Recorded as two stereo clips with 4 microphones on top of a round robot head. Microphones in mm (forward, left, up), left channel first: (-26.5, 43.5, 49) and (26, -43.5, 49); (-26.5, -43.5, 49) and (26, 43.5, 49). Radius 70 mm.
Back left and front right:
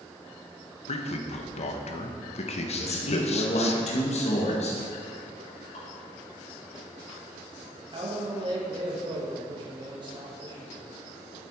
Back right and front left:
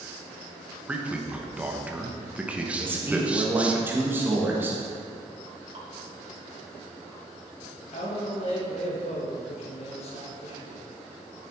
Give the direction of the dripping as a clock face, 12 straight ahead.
9 o'clock.